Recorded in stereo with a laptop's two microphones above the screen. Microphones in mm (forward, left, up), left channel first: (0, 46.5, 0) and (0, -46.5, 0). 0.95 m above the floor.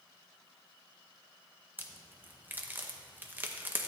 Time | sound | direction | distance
1.8 | a crack | 20° right (ahead or behind) | 0.6 m